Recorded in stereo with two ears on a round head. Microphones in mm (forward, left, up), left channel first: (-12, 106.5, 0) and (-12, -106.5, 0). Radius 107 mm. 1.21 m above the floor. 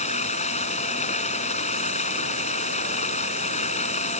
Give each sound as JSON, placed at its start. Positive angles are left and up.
{"t": 0.0, "sound": "running water", "side_deg": 30}